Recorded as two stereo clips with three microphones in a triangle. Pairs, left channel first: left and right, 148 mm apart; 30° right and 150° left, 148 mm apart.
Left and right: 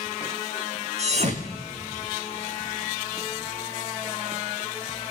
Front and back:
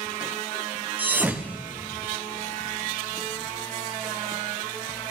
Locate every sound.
1.0 s a thud: 130° right, 2 m